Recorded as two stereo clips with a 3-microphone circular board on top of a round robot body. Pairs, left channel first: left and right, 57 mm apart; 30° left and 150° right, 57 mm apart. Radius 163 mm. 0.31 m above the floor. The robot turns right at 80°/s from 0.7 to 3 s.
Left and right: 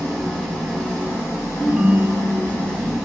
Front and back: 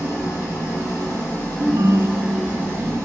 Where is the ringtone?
170° left, 0.8 m; by 2.9 s 85° right, 0.8 m.